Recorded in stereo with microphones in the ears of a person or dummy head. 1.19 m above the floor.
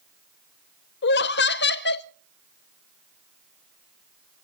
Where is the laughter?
50° left (ahead or behind), 0.6 m.